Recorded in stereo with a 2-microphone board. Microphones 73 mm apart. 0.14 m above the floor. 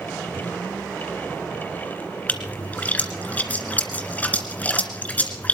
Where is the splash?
20° left (ahead or behind), 2 m.